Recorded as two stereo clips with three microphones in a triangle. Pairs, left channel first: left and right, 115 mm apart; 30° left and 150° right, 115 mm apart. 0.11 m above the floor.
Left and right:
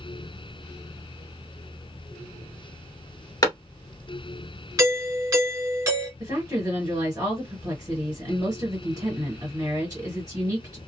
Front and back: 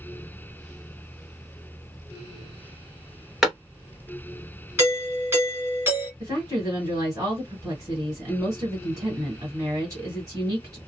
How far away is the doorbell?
About 2 m.